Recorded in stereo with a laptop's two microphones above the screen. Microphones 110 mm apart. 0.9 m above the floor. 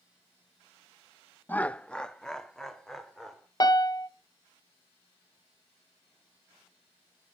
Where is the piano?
35° left (ahead or behind), 0.7 m.